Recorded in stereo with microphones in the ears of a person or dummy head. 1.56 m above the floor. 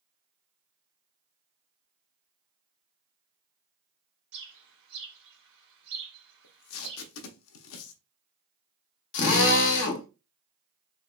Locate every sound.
4.3 s a bird: 65° right (ahead or behind), 1.6 m
6.4 s tape being pulled: 80° left, 0.6 m
9.1 s a drill: 65° left (ahead or behind), 0.9 m